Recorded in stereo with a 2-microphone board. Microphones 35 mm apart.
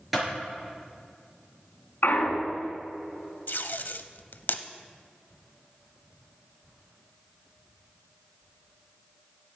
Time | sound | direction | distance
0.1 | a clap | 5° right (ahead or behind) | 4.5 m
2.0 | a clunk | 70° left (ahead or behind) | 1.6 m
3.5 | tape being pulled | 75° left (ahead or behind) | 0.5 m